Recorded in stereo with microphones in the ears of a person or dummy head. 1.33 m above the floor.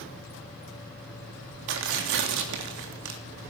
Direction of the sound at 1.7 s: 65° right (ahead or behind).